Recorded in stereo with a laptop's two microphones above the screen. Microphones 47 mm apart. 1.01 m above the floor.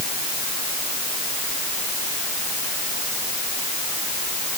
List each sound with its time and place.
Only background noise.